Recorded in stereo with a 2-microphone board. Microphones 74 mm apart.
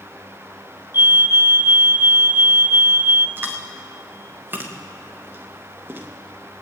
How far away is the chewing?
About 2.5 m.